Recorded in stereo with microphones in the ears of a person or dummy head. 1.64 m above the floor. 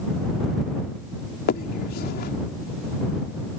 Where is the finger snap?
55° left (ahead or behind).